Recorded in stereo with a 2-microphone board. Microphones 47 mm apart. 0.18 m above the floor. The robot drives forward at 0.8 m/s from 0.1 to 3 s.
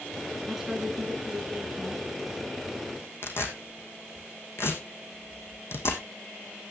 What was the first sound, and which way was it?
A woman speaking, 10° right (ahead or behind).